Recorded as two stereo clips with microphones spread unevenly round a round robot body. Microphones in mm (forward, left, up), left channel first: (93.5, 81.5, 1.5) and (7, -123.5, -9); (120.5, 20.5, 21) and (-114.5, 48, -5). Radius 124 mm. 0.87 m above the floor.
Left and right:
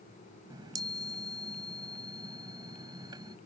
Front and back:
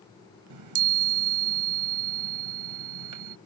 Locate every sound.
0.5 s a chime: 170° left